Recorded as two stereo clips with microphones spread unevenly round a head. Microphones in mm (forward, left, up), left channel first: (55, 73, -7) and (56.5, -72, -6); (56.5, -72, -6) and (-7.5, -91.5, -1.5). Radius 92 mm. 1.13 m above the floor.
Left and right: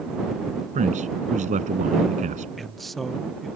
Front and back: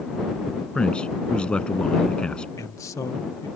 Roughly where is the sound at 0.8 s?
Ahead right.